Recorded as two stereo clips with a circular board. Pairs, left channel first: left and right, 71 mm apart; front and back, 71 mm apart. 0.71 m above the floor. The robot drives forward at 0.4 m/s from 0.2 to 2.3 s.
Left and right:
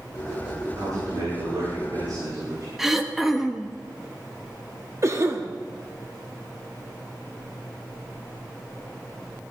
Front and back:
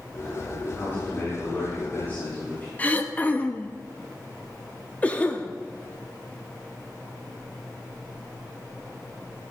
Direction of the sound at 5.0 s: 60° right.